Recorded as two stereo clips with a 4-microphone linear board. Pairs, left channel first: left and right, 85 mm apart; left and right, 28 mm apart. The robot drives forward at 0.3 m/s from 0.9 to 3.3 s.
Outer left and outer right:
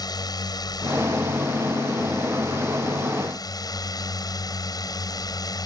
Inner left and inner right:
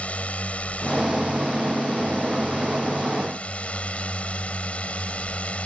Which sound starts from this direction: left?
A drone, at 0.0 s.